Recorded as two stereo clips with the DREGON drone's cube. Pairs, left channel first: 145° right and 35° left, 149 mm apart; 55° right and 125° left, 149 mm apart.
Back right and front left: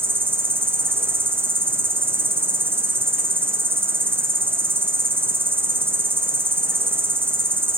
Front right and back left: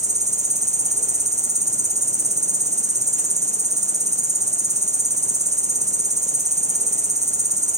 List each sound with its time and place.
0.0 s an insect: 105° left, 0.7 m